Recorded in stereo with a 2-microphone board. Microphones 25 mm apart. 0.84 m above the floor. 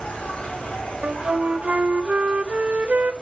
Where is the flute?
60° right (ahead or behind), 0.7 m.